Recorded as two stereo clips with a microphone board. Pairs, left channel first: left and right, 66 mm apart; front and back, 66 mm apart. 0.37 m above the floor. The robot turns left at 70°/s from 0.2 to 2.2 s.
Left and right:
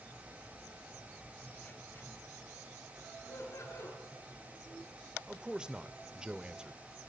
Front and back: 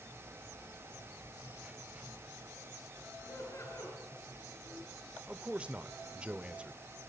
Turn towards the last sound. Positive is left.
turn(degrees=-140)